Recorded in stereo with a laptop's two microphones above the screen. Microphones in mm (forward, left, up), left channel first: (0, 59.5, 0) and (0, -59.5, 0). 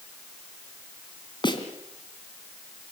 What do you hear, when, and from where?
1.4 s a snare drum: 40° left (ahead or behind), 2.5 m